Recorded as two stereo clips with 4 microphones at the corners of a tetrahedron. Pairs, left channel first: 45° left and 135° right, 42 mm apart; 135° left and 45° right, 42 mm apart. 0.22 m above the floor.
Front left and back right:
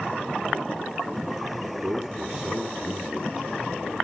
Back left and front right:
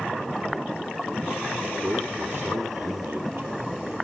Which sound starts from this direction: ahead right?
A man speaking, at 1.8 s.